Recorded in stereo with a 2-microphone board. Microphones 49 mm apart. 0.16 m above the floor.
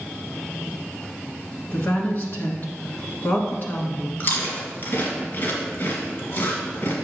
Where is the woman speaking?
45° left (ahead or behind), 1.5 m.